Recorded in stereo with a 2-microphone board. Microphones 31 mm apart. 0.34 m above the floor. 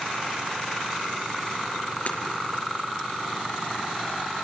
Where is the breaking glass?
60° left (ahead or behind), 4 m.